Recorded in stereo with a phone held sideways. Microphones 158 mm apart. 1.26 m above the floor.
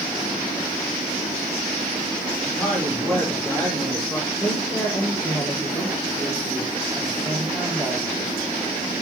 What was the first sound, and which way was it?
A man speaking, 10° left (ahead or behind).